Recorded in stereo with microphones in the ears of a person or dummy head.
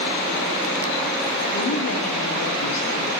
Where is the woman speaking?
80° left, 3 m.